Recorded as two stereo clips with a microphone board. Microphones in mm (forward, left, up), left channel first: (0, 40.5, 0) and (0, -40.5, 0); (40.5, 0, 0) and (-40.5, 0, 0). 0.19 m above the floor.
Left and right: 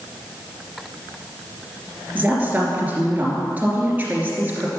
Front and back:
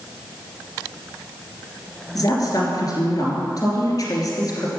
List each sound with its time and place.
2.1 s a woman speaking: 25° right, 2.5 m